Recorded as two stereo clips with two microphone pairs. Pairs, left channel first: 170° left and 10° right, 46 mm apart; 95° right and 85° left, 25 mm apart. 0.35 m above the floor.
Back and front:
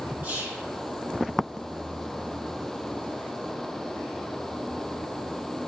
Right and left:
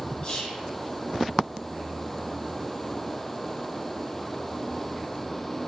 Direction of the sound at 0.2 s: 50° right.